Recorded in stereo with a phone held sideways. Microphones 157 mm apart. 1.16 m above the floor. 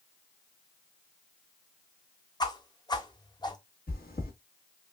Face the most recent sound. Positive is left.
turn(degrees=75)  # may be behind; listen again after turning